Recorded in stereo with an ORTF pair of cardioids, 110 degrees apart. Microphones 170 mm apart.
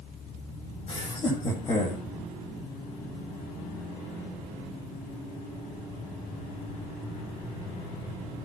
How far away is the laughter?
About 9 m.